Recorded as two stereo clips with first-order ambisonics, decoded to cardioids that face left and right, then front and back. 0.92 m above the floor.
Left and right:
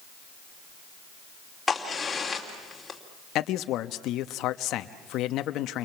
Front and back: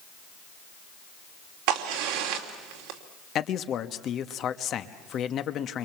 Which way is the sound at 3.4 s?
50° left.